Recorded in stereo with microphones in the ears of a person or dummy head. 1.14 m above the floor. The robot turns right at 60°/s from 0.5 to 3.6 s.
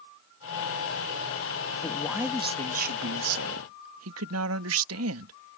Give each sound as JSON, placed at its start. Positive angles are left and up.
{"t": 1.8, "sound": "a man speaking", "azimuth_deg": 165}